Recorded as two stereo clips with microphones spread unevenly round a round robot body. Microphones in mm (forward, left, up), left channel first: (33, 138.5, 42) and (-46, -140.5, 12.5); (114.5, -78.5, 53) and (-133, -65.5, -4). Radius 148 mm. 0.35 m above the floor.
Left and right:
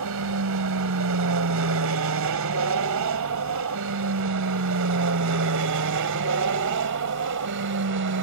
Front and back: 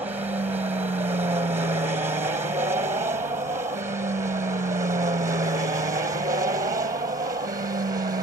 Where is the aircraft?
115° right; by 8.2 s 125° right.